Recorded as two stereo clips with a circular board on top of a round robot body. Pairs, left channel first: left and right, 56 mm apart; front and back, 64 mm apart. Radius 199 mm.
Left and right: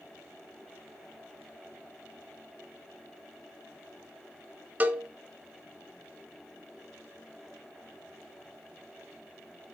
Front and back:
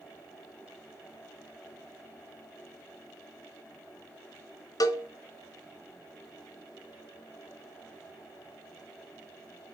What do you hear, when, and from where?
4.8 s a cowbell: 25° right, 1.1 m